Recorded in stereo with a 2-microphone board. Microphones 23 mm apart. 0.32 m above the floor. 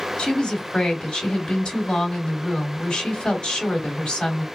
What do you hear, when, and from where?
0.2 s a woman speaking: 45° left (ahead or behind), 1.6 m